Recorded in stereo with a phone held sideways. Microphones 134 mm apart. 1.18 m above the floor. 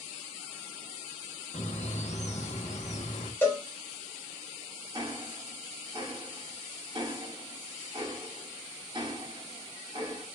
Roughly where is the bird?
Left.